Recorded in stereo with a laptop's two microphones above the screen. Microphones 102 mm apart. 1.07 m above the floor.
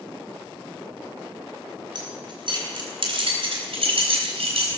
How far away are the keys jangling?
About 3 m.